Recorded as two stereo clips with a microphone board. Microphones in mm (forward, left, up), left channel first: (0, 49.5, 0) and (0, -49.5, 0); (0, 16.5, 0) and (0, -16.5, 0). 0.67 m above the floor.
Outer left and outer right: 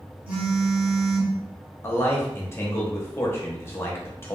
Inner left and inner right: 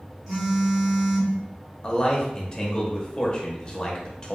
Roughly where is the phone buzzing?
Centre.